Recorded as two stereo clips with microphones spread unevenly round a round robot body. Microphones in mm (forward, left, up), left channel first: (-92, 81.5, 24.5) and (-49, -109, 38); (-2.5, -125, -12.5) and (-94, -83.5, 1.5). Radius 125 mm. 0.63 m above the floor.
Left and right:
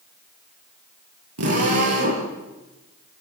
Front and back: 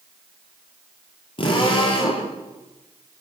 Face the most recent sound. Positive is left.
turn(degrees=-60)